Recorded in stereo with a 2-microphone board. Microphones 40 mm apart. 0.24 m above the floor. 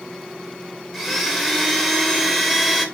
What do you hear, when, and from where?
0.9 s a blender: centre (ahead or behind), 0.7 m